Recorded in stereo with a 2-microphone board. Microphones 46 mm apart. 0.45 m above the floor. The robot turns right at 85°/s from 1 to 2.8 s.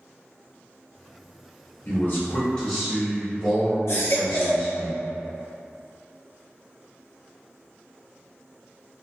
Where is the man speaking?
95° left, 1.0 m; by 4.9 s straight behind, 1.0 m.